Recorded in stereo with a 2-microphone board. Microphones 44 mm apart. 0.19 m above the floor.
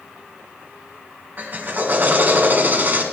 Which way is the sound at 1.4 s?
45° right (ahead or behind).